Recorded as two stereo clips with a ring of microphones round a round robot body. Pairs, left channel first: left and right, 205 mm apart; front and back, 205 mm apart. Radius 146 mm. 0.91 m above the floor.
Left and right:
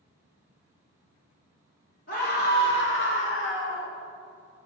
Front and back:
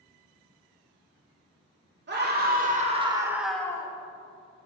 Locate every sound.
2.1 s a scream: 150° left, 2.5 m; by 3.9 s 70° left, 1.9 m